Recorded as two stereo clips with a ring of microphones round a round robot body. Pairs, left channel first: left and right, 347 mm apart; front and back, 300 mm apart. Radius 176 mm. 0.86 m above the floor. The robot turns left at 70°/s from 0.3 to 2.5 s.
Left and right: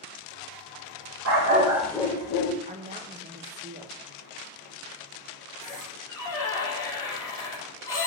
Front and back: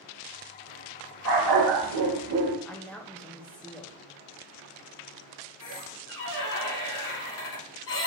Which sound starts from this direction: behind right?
A dog barking, at 1.2 s.